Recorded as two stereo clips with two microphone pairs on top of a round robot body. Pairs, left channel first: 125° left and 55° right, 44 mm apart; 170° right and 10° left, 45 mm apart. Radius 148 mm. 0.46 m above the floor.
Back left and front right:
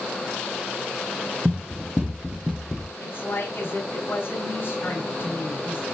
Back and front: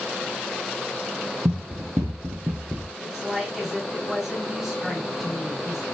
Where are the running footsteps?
5° left, 1.1 m; by 2.9 s 30° left, 0.5 m.